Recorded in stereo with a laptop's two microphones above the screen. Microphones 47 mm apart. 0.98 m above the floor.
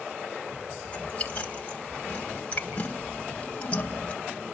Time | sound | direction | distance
0.8 | chewing | 30° left (ahead or behind) | 1.5 m